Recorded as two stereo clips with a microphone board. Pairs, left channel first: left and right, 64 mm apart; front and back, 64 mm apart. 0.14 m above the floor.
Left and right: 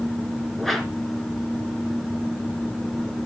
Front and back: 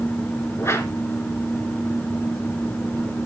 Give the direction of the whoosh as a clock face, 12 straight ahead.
12 o'clock.